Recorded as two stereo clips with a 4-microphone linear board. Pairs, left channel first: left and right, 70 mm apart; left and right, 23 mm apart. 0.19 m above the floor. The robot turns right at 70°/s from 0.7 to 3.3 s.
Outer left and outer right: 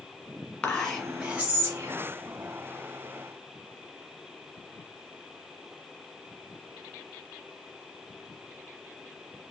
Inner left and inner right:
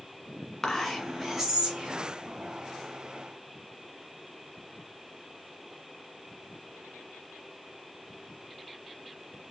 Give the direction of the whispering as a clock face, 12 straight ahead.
7 o'clock.